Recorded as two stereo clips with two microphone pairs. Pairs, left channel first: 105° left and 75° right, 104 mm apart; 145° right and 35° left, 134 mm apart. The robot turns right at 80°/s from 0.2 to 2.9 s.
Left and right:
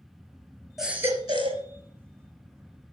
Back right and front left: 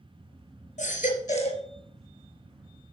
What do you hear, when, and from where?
0.8 s a baby crying: 165° right, 3 m; by 1.6 s 95° right, 3 m